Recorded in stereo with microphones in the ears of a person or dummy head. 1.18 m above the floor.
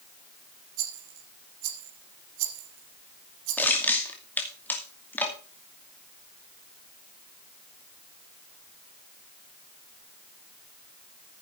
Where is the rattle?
70° right (ahead or behind), 4.5 m.